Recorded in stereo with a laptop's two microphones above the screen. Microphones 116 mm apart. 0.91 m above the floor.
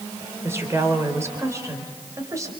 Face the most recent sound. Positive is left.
turn(degrees=-25)  # may be behind; listen again after turning